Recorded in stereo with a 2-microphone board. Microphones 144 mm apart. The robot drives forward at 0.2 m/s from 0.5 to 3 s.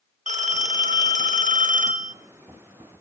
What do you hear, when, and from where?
0.3 s a phone ringing: 55° right (ahead or behind), 0.9 m; by 2.1 s 65° right (ahead or behind), 0.8 m